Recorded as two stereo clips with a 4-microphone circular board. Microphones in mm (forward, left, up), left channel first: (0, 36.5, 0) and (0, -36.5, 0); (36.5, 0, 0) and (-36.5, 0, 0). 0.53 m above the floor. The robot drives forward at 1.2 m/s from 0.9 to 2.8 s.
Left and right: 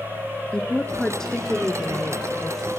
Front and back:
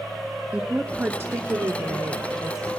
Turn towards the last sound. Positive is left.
turn(degrees=175)